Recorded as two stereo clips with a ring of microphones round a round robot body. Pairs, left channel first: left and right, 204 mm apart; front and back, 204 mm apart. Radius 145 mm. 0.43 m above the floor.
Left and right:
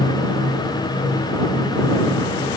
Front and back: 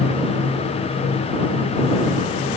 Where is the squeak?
No squeak in this recording.